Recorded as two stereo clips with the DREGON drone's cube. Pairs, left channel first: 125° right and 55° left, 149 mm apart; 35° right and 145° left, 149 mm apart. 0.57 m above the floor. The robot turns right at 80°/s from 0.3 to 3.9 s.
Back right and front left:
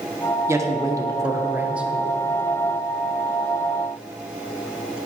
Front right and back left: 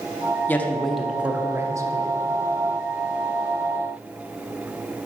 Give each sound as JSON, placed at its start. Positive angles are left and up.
{"t": 0.5, "sound": "a man speaking", "azimuth_deg": 20, "distance_m": 0.6}